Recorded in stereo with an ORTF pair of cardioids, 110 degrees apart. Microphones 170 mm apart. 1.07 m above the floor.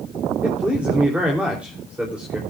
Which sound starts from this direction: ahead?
A man speaking, at 0.4 s.